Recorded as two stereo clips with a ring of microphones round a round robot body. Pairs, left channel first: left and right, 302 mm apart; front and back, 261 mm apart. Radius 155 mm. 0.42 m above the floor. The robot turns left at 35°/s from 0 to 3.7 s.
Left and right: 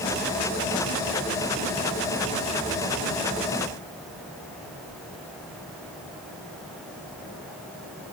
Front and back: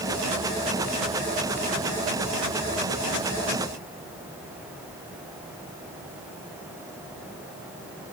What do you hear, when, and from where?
Only background noise.